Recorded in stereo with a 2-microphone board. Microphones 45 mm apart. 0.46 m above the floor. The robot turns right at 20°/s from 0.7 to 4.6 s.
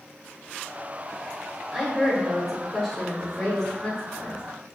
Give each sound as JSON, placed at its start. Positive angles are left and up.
{"t": 1.7, "sound": "a woman speaking", "azimuth_deg": -10, "distance_m": 0.9}